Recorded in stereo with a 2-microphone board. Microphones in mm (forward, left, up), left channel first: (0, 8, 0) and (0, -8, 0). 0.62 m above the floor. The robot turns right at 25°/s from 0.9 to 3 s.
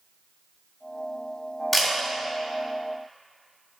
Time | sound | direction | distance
1.7 | a camera shutter | 10° left (ahead or behind) | 2.5 m